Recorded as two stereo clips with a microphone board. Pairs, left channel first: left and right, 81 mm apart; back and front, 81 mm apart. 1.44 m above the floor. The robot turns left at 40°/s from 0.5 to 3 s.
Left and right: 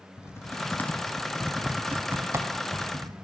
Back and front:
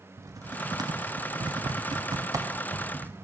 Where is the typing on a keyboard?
35° left, 0.5 m; by 3.1 s 65° right, 0.5 m.